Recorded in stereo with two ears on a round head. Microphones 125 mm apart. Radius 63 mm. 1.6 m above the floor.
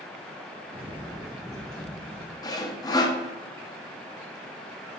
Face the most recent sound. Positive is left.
turn(degrees=25)  # may be behind; listen again after turning